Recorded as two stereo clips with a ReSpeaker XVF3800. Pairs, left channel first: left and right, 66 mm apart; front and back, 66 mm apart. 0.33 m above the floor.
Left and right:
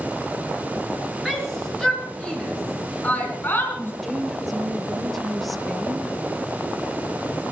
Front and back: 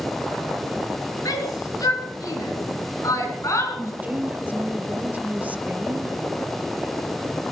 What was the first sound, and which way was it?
A shout, straight ahead.